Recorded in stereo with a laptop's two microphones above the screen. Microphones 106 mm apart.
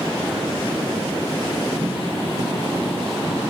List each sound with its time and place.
1.8 s tapping: 80° right, 2.5 m